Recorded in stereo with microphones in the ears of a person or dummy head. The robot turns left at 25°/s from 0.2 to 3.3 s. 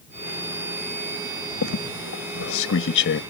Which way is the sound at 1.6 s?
80° left.